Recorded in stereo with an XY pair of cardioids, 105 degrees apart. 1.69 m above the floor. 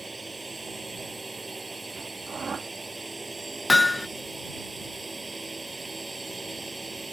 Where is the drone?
15° right.